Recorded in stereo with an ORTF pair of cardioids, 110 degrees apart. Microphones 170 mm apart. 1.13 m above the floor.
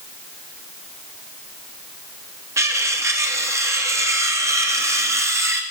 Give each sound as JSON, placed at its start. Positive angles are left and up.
{"t": 2.6, "sound": "cutlery clinking", "azimuth_deg": -15, "distance_m": 0.7}